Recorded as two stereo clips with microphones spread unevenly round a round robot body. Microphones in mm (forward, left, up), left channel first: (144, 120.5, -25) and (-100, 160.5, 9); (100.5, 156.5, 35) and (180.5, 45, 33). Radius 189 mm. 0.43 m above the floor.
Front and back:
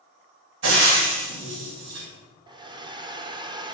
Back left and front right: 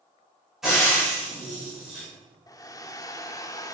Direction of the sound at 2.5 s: 105° left.